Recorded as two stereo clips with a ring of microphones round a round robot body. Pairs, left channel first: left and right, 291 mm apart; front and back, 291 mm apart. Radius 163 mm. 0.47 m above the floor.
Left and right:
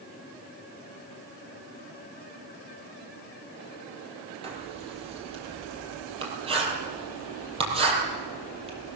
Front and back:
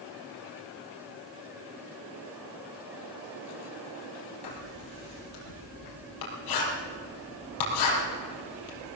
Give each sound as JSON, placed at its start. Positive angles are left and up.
{"t": 4.4, "sound": "writing", "azimuth_deg": -20, "distance_m": 5.0}